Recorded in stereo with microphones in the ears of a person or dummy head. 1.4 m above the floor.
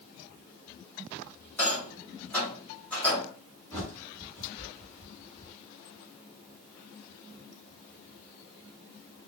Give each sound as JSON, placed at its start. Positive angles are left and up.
{"t": 1.6, "sound": "a rattle", "side_deg": 10, "distance_m": 1.9}
{"t": 3.7, "sound": "a bird", "side_deg": 10, "distance_m": 1.8}